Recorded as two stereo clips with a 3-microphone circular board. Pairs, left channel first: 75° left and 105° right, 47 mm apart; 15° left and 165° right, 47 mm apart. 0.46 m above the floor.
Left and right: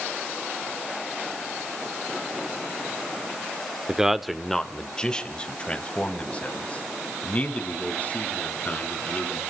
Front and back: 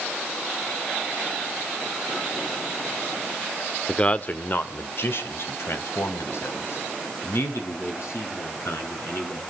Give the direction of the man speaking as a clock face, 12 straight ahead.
1 o'clock.